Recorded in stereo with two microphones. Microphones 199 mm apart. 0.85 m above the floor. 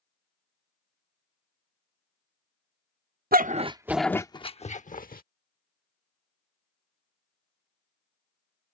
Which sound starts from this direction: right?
A dog barking, at 3.3 s.